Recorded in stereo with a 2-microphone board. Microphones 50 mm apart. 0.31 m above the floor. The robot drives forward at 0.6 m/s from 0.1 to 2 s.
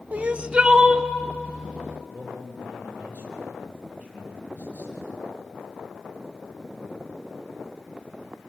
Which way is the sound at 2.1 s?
35° right (ahead or behind).